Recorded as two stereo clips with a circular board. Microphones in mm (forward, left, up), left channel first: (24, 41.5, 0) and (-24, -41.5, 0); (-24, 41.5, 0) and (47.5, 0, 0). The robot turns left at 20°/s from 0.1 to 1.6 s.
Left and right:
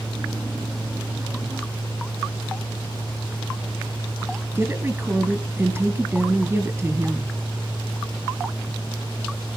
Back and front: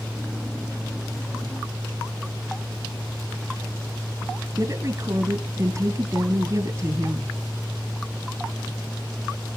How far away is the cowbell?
I don't hear a cowbell.